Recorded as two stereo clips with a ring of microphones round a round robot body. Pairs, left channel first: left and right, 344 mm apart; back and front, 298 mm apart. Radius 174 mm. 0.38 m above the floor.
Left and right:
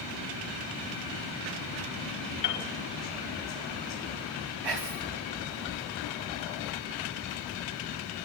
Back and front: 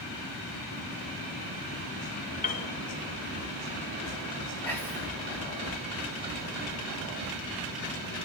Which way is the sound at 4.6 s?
95° right.